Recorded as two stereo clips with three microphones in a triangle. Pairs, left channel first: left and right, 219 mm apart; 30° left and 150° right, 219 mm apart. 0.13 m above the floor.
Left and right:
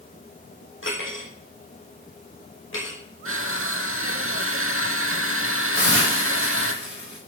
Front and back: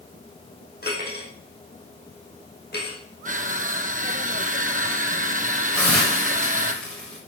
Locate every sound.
0.8 s cutlery clinking: 70° left, 3.5 m
3.2 s crushing: 95° right, 1.0 m
5.7 s a hiss: 55° right, 7.5 m